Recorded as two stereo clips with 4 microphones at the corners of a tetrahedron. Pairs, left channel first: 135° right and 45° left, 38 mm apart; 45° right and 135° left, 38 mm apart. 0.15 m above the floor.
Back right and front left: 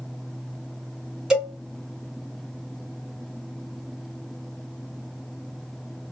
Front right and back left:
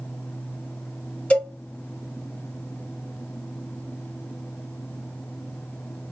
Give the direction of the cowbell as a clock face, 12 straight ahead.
12 o'clock.